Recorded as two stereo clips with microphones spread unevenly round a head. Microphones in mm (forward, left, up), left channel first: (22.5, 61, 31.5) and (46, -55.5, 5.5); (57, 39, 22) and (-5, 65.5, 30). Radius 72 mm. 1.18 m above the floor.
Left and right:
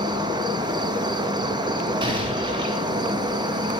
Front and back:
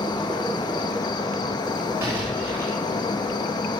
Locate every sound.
0.0 s an insect: 30° right, 1.5 m
2.0 s an explosion: 135° right, 3 m